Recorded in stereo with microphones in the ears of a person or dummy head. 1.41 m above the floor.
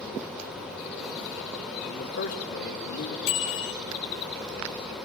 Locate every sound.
1.8 s a man speaking: 65° left (ahead or behind), 3 m; by 3.2 s 75° left (ahead or behind), 3.5 m
3.3 s a bicycle bell: 85° left, 5 m